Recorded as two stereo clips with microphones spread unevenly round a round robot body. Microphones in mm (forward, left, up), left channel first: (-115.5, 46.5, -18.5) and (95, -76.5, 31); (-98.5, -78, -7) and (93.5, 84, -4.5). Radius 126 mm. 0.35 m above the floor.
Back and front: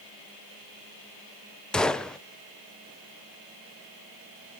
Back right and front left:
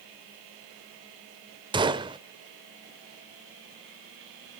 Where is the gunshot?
90° left, 0.7 m.